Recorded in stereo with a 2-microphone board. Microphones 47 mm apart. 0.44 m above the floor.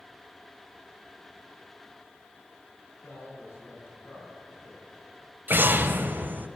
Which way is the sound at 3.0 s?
60° left (ahead or behind).